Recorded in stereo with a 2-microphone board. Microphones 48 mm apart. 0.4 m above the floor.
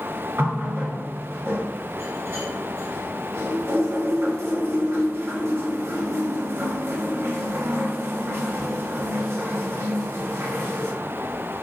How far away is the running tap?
About 1.3 m.